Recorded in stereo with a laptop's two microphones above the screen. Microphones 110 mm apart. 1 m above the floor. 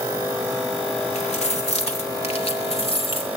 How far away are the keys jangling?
About 1.8 m.